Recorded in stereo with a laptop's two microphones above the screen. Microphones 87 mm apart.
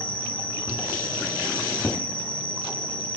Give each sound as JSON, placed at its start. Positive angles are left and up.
{"t": 0.0, "sound": "an insect", "side_deg": 85, "distance_m": 8.5}